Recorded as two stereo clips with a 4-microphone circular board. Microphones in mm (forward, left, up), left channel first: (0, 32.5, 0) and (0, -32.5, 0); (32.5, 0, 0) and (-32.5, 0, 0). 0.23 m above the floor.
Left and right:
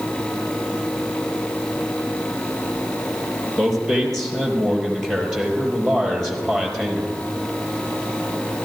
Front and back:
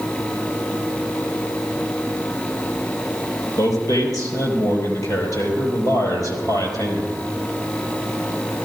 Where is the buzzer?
No buzzer in this recording.